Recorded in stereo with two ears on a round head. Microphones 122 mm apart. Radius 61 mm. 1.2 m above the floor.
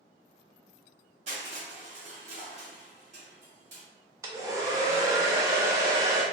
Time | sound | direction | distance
1.3 | crushing | 55° right (ahead or behind) | 1.2 m
4.2 | a hair dryer | 25° right (ahead or behind) | 0.5 m